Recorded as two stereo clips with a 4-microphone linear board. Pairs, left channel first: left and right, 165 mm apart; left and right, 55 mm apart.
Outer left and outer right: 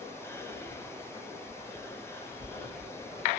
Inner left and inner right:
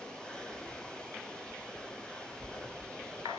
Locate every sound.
0.2 s whispering: 15° left (ahead or behind), 1.0 m